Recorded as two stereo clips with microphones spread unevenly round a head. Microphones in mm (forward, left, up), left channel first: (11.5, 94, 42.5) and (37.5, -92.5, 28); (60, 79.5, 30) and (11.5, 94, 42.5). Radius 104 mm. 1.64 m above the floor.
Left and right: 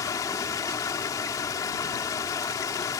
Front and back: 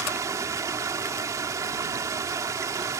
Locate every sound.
0.0 s running water: 170° left